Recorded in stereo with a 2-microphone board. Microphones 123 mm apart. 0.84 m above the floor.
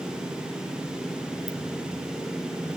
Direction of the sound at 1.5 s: 80° right.